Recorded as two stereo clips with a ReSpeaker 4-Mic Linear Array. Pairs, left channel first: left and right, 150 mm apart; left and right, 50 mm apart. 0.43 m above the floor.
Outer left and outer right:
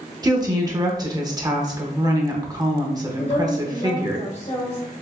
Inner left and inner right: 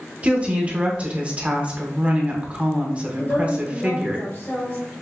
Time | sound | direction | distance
0.2 | a woman speaking | 25° right (ahead or behind) | 0.8 m
3.2 | a woman speaking | 50° left (ahead or behind) | 1.6 m